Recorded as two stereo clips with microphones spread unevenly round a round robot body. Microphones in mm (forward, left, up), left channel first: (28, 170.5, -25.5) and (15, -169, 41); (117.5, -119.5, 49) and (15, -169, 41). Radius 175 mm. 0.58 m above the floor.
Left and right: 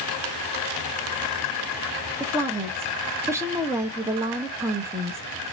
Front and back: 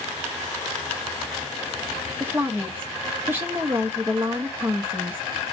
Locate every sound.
2.2 s a woman speaking: 170° left, 0.7 m